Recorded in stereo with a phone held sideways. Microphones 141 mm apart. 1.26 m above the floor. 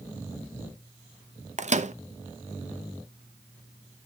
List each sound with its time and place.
1.6 s a microwave: 55° right (ahead or behind), 0.5 m